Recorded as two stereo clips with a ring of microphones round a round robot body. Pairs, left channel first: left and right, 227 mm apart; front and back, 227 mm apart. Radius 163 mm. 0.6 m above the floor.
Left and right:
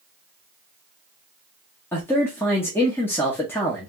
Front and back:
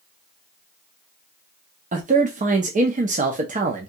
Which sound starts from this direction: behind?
A man speaking, at 1.9 s.